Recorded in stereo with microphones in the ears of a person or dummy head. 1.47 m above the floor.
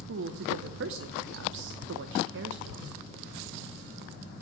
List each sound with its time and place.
0.1 s a woman speaking: 65° right (ahead or behind), 0.8 m